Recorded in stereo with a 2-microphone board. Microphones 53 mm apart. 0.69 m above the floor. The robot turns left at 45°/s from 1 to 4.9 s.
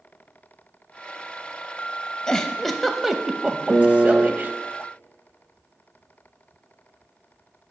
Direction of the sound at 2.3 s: 20° left (ahead or behind).